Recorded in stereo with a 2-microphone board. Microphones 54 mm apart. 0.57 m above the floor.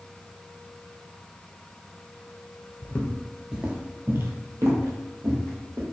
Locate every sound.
2.8 s footsteps: 35° left (ahead or behind), 0.6 m; by 5.8 s 70° right (ahead or behind), 1.6 m